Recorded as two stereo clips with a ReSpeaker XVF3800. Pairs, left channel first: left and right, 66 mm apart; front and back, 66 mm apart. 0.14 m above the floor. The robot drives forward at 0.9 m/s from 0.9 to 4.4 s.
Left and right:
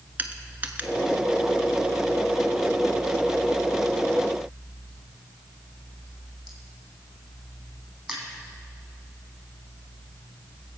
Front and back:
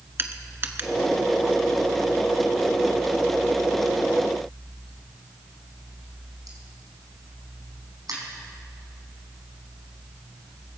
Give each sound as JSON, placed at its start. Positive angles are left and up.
{"t": 0.2, "sound": "crushing", "azimuth_deg": -140, "distance_m": 1.1}